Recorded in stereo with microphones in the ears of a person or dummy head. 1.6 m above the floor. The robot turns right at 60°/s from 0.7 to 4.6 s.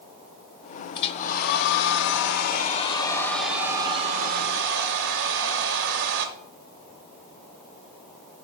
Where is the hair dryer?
35° left, 0.7 m; by 6.3 s 110° right, 0.7 m.